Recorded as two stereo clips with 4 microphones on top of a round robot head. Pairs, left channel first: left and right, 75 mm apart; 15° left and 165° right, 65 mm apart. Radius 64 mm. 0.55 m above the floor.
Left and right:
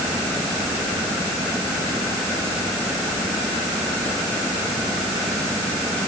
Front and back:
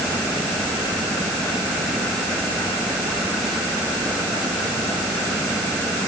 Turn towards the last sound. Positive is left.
No sound to turn to.